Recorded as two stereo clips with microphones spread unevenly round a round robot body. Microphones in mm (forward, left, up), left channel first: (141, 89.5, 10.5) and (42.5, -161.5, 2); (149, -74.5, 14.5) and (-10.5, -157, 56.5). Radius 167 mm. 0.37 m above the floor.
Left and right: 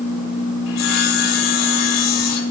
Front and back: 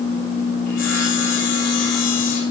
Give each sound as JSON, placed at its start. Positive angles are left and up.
{"t": 0.7, "sound": "sawing", "azimuth_deg": 85, "distance_m": 3.5}